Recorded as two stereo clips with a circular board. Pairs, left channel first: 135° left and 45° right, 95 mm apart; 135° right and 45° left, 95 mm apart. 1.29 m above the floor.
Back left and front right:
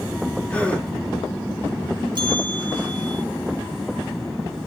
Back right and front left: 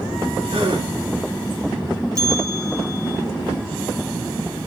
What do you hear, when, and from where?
0.5 s a gasp: 60° left, 3 m
2.1 s a bell: 5° right, 4.5 m